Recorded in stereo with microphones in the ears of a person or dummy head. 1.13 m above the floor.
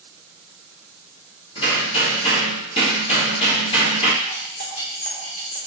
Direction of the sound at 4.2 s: 45° left (ahead or behind).